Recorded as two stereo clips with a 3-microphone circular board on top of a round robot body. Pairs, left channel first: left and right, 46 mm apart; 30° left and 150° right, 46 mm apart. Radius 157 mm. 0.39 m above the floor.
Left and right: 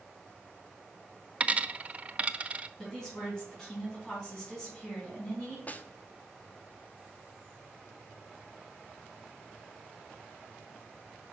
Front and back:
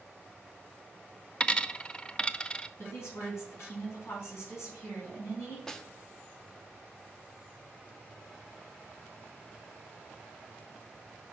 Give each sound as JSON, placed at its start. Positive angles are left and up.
{"t": 1.4, "sound": "a dropped coin", "azimuth_deg": -35, "distance_m": 0.6}
{"t": 2.8, "sound": "a woman speaking", "azimuth_deg": 10, "distance_m": 4.5}
{"t": 5.7, "sound": "a snare drum", "azimuth_deg": 100, "distance_m": 0.9}